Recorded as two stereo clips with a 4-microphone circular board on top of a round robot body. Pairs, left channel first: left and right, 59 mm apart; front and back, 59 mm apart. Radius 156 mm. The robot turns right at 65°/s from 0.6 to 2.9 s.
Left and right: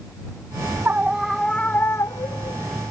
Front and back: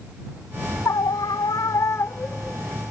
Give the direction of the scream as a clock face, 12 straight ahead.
1 o'clock.